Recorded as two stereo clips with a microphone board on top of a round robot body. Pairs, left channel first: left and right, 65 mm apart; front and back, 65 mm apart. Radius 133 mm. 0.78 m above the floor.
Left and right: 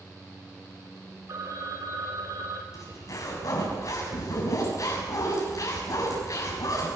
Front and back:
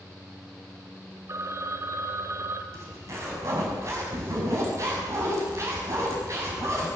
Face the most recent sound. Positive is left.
turn(degrees=135)